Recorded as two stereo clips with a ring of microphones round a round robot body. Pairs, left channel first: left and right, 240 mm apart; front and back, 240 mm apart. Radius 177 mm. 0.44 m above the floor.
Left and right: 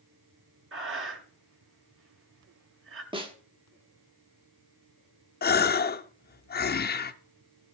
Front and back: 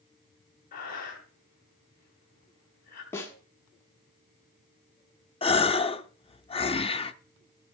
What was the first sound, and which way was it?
Breathing, 60° right.